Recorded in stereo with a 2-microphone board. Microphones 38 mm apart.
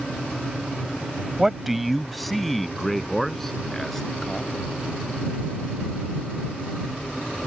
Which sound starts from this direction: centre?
A man speaking, at 1.4 s.